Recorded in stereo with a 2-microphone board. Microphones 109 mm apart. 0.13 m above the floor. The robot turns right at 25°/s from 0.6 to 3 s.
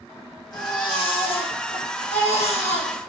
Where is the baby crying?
45° left, 3.5 m; by 2.9 s 100° left, 3.5 m.